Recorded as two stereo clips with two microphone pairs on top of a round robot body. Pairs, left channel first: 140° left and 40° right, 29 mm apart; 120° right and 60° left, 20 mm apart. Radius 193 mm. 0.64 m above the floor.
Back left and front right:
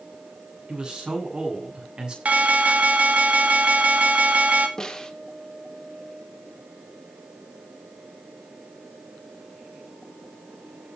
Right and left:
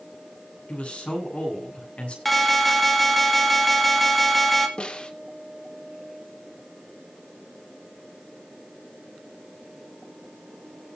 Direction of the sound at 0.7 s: 95° right.